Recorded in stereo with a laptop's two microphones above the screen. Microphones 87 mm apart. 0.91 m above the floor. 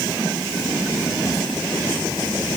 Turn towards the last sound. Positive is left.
No sound to turn to.